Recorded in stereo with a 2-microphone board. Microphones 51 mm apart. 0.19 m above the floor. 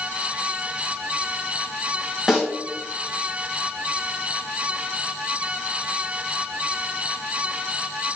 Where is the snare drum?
5° right (ahead or behind), 1.6 m.